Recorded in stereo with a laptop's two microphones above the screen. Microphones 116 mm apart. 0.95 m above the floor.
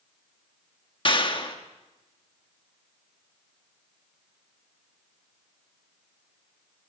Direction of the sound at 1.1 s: 45° left (ahead or behind).